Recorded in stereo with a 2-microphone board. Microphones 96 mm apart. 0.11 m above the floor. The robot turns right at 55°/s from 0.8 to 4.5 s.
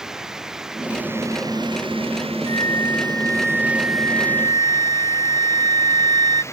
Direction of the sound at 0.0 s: 175° right.